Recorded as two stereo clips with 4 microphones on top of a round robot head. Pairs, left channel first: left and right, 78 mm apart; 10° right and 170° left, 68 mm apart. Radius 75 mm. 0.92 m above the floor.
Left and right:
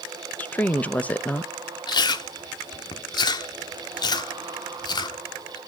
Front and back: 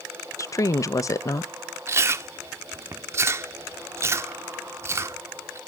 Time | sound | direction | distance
0.4 | a woman speaking | 20° left | 0.8 m
1.9 | chewing | 120° left | 1.1 m